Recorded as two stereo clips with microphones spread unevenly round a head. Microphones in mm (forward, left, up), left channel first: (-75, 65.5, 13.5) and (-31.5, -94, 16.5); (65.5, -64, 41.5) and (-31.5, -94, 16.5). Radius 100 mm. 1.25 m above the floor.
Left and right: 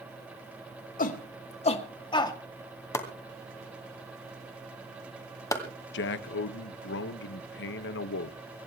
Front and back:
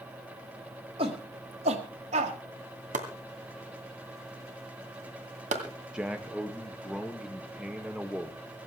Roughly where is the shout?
Behind left.